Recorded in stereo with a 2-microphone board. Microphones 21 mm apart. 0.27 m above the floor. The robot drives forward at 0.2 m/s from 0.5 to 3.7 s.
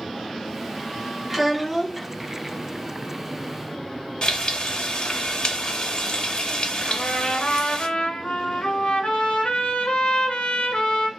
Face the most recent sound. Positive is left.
turn(degrees=80)